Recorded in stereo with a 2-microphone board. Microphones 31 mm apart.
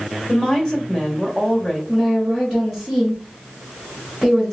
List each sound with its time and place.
0.3 s a woman speaking: 25° left (ahead or behind), 1.2 m
1.9 s a woman speaking: 5° left (ahead or behind), 1.7 m